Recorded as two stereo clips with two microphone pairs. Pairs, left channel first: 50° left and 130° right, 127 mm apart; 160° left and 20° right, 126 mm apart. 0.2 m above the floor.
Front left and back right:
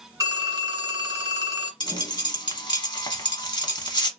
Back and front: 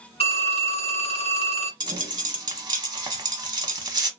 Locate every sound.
0.2 s a phone ringing: 175° left, 1.7 m
1.8 s a dropped coin: 20° left, 0.7 m